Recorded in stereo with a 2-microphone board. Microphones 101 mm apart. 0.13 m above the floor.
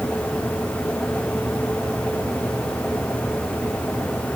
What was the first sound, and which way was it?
Only background noise.